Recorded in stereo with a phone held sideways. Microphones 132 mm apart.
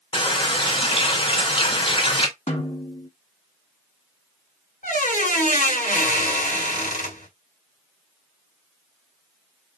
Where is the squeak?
85° left, 1.8 m.